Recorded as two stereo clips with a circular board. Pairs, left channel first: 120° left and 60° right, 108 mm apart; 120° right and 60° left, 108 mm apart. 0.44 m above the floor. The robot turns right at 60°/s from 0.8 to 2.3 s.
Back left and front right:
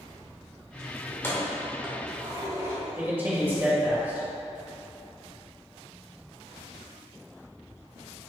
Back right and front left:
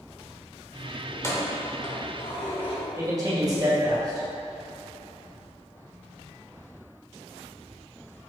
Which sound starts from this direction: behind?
Keys jangling, at 1.1 s.